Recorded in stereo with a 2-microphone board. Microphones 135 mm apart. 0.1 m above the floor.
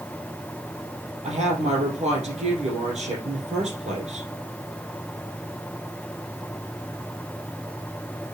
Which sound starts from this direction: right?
A woman speaking, at 1.2 s.